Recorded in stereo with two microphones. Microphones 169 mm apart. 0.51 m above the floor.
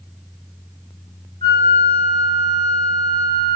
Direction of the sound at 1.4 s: 35° left (ahead or behind).